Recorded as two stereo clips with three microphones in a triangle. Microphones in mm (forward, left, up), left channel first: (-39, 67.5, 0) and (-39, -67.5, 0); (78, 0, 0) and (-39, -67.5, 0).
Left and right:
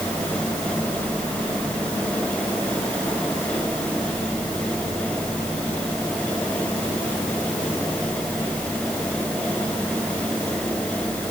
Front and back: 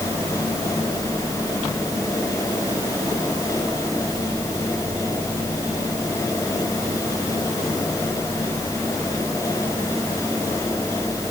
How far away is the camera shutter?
No camera shutter in this recording.